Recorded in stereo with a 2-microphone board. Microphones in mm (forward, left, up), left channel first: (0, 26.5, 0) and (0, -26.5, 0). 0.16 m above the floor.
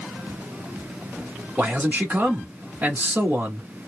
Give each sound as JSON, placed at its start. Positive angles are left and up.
{"t": 1.6, "sound": "a man speaking", "side_deg": -30, "distance_m": 1.5}